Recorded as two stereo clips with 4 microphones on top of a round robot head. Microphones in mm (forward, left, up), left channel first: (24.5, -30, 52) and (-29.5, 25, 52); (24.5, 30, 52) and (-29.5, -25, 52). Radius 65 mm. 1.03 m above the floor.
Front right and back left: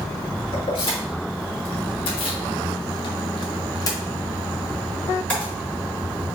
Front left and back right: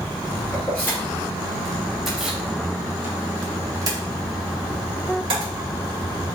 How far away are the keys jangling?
About 1.9 m.